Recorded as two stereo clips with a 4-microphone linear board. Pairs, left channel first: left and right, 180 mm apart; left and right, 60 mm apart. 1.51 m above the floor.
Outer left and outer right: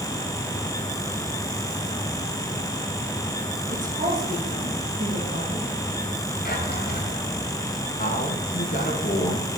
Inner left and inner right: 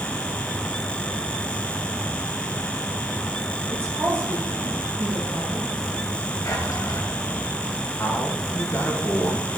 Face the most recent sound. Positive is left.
turn(degrees=45)  # may be behind; listen again after turning